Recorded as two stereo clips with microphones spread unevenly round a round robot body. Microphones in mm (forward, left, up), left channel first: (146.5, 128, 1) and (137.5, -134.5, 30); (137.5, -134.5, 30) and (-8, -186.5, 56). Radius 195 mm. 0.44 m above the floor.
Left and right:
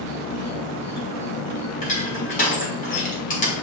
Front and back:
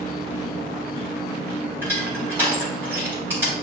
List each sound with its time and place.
0.0 s an insect: 65° left, 0.8 m
1.8 s crushing: 115° left, 1.0 m